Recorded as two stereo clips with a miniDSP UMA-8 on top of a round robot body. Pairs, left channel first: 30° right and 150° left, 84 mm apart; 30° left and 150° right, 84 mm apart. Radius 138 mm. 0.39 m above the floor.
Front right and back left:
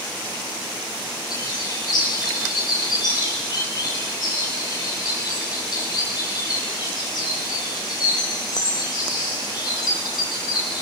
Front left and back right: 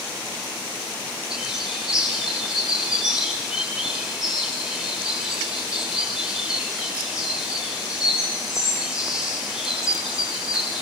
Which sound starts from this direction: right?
A bird, at 1.3 s.